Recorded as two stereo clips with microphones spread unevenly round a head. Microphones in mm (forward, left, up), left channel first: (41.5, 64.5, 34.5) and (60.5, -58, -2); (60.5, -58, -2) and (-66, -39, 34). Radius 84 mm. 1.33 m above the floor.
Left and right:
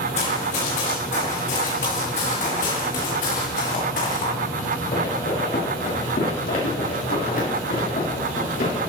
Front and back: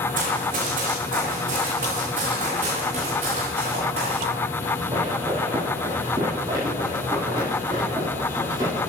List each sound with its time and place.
0.1 s running footsteps: 145° left, 5 m; by 8.8 s 100° left, 7 m